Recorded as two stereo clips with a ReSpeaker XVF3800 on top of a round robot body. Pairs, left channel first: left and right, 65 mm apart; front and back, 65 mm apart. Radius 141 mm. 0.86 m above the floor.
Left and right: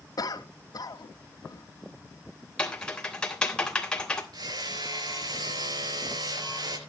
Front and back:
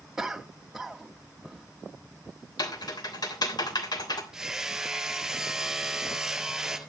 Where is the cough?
95° left, 1.9 m.